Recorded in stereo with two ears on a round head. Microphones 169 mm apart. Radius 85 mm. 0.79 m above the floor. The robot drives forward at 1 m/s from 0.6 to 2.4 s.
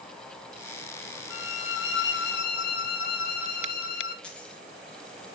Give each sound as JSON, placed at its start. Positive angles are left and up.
{"t": 1.3, "sound": "a violin", "side_deg": 70, "distance_m": 1.4}
{"t": 4.2, "sound": "a dropped coin", "side_deg": 5, "distance_m": 3.5}